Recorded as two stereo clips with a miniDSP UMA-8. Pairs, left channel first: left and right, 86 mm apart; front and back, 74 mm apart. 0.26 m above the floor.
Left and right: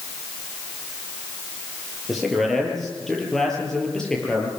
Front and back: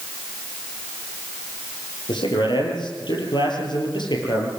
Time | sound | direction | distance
2.1 | a man speaking | straight ahead | 7.5 m